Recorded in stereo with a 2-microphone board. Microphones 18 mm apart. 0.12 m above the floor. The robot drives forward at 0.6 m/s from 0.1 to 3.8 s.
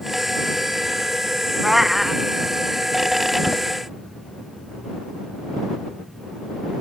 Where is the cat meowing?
15° right (ahead or behind); by 2.2 s 10° right (ahead or behind).